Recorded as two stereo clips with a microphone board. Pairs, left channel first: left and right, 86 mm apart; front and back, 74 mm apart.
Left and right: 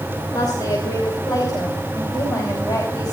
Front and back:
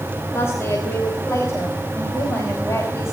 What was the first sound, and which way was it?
A woman speaking, 50° left.